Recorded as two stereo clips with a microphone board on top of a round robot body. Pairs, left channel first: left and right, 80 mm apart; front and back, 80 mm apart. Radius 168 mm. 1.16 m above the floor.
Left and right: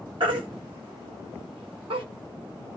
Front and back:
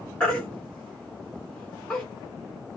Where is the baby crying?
80° right, 0.6 m.